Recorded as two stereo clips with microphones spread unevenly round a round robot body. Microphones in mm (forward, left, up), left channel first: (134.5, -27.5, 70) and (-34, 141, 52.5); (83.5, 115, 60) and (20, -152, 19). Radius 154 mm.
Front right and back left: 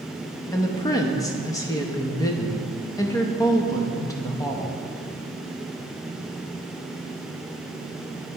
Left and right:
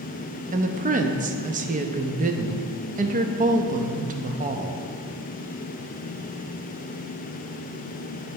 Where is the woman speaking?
115° right, 0.6 m.